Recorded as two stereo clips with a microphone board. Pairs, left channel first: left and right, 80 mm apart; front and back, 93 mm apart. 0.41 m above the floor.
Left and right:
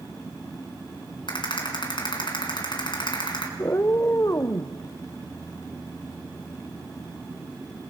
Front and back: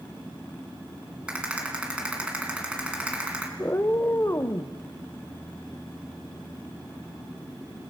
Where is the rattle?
100° left, 3.5 m.